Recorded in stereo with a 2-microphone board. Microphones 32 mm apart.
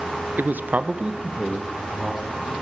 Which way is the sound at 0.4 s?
60° right (ahead or behind).